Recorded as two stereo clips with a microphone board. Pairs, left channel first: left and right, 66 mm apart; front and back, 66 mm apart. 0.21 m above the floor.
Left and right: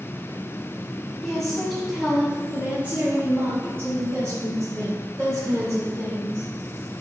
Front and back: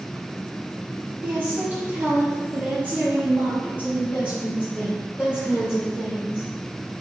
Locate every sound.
1.2 s a woman speaking: 160° left, 1.3 m; by 6.5 s 105° right, 3 m